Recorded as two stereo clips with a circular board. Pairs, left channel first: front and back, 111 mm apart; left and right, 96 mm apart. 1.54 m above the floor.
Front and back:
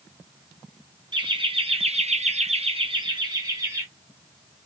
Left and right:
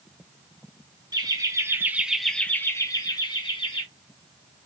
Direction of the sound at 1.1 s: 135° right.